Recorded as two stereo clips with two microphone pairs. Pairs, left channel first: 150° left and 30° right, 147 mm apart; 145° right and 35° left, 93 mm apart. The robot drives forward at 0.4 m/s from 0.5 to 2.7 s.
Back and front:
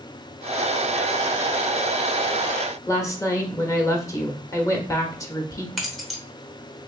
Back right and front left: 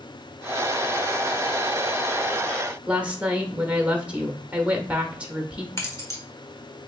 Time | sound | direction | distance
2.9 | a woman speaking | 100° left | 0.8 m
5.8 | keys jangling | 120° right | 0.9 m